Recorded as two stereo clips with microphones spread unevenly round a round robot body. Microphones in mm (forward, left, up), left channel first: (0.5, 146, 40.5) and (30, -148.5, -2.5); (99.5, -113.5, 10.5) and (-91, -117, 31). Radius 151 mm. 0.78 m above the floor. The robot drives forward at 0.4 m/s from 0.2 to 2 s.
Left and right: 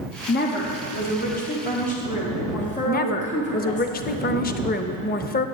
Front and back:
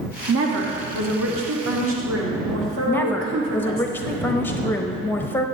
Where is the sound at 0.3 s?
155° left, 1.0 m; by 3.9 s 165° left, 1.6 m.